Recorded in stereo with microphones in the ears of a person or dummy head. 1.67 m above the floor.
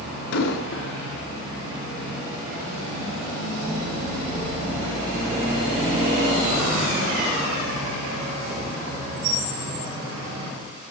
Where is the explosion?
75° left (ahead or behind), 2 m.